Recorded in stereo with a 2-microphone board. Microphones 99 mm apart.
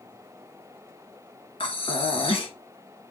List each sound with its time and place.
1.6 s breathing: 65° left (ahead or behind), 2.0 m